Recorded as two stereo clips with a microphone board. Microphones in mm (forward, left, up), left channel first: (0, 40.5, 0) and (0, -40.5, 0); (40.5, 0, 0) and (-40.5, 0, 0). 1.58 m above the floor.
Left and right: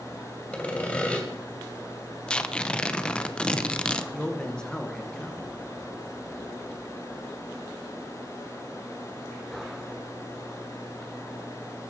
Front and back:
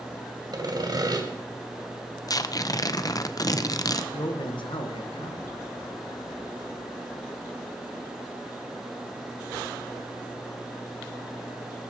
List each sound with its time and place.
0.5 s sawing: 160° left, 2.5 m
2.3 s tearing paper: 15° left, 0.7 m
4.1 s a man speaking: 10° left, 1.7 m